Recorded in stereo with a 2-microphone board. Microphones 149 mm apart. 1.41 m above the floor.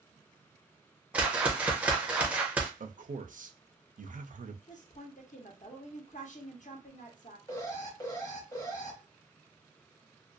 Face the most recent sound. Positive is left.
turn(degrees=20)  # may be behind; listen again after turning